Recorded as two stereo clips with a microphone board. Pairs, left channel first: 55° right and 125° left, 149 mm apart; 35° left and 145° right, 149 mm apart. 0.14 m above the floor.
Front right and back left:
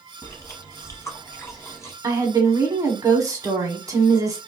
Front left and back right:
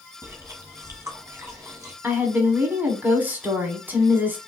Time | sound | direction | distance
0.2 | chewing | 100° right | 1.2 m
2.0 | a woman speaking | 155° left | 1.1 m